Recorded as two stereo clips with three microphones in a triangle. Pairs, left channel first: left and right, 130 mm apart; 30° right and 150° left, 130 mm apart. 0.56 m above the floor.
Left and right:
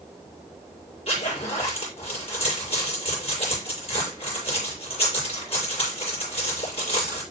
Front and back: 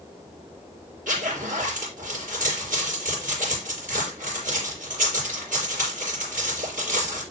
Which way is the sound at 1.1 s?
135° left.